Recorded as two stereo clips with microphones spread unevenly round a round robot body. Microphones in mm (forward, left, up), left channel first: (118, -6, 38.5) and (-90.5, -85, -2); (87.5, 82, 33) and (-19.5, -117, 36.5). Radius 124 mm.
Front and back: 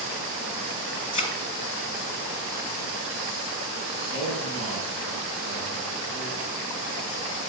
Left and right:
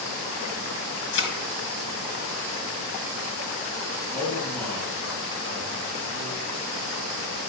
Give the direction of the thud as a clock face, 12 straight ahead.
8 o'clock.